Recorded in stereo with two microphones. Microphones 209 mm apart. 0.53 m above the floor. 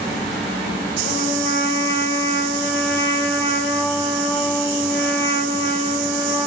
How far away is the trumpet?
About 0.5 m.